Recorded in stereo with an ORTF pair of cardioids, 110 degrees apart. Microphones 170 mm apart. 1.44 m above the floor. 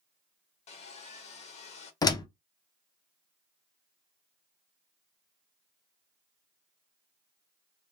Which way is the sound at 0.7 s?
40° left.